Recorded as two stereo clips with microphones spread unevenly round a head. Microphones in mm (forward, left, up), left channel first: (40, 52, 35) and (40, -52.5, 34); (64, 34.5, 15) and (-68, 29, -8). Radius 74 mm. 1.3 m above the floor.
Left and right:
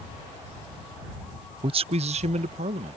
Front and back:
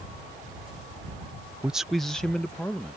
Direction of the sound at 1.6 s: 105° right.